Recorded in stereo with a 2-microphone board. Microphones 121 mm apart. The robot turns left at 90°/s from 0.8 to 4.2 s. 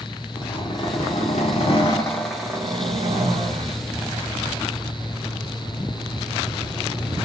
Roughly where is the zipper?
Behind left.